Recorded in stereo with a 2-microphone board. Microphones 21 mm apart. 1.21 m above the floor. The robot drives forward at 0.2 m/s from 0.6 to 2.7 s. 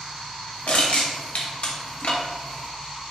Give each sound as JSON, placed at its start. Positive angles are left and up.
{"t": 0.7, "sound": "crushing", "side_deg": 75, "distance_m": 1.0}